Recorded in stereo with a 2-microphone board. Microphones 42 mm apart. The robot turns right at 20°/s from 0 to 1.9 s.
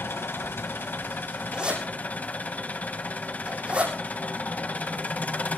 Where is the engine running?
100° left, 1.7 m; by 5.6 s 140° left, 1.7 m.